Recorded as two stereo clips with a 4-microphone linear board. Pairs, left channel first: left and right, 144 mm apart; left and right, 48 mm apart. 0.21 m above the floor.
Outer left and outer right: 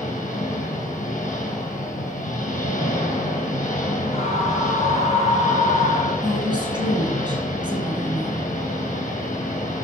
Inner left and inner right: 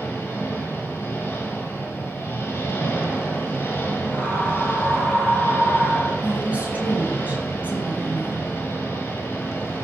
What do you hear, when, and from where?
0.0 s an engine running: 60° left (ahead or behind), 2.5 m
4.1 s a scream: 45° left (ahead or behind), 2.5 m
6.2 s a woman speaking: 30° right (ahead or behind), 2 m